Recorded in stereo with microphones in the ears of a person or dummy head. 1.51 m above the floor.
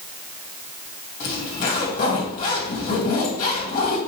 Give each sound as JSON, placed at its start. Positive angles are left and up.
{"t": 1.2, "sound": "a zipper", "side_deg": 45, "distance_m": 2.5}